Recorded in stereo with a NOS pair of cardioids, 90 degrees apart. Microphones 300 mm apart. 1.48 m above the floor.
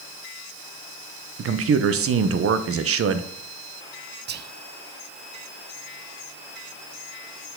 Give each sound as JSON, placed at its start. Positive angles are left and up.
{"t": 1.4, "sound": "a man speaking", "azimuth_deg": -50, "distance_m": 0.9}
{"t": 4.3, "sound": "whispering", "azimuth_deg": -35, "distance_m": 0.5}